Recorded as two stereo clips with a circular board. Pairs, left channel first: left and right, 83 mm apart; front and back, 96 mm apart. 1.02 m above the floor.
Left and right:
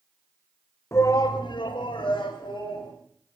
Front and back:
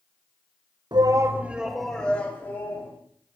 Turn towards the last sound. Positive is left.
turn(degrees=65)